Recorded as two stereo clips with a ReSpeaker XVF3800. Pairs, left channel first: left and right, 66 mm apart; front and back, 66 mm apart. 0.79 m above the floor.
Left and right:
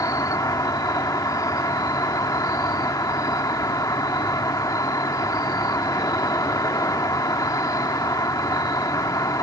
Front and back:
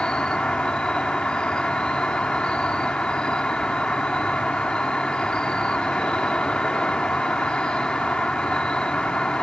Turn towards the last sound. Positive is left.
turn(degrees=75)